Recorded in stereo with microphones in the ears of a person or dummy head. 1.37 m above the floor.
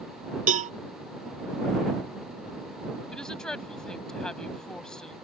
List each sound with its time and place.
0.5 s a cowbell: 45° right (ahead or behind)
3.1 s a woman speaking: 15° left (ahead or behind)